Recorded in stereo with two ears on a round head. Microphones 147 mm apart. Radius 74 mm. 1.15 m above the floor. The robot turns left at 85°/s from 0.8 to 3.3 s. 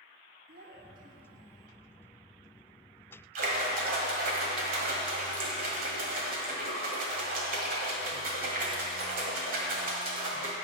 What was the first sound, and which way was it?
A child speaking, 110° right.